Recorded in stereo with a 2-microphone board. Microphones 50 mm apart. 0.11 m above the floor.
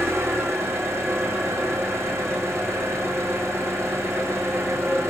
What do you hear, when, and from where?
0.0 s an engine running: 65° right (ahead or behind), 5.5 m